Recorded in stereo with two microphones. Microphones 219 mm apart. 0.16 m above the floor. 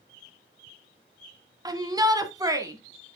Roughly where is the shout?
Centre.